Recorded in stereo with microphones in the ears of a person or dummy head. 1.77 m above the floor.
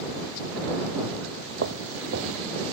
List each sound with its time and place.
1.6 s footsteps: 60° right (ahead or behind)